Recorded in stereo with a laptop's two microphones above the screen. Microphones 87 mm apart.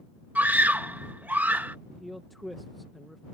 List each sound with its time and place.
0.3 s a scream: 20° right (ahead or behind)
1.9 s a man speaking: centre (ahead or behind)